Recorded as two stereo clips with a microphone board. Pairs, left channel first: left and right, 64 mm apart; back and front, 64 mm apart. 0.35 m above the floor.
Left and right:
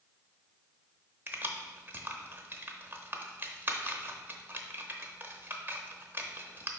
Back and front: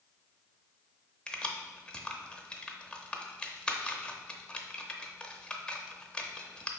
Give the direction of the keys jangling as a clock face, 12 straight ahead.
4 o'clock.